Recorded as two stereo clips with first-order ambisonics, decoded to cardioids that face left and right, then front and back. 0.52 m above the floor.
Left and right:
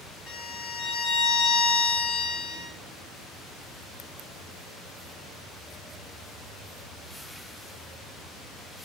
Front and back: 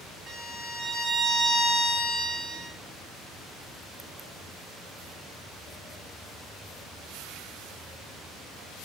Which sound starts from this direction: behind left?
A violin, at 0.3 s.